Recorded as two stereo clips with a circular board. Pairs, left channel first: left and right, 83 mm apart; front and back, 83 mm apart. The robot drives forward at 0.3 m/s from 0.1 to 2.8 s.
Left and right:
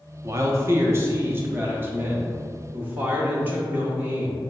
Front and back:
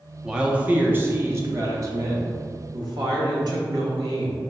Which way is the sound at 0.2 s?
105° right.